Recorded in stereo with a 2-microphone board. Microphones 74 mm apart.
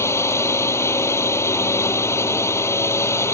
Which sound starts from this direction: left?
A drone, at 0.0 s.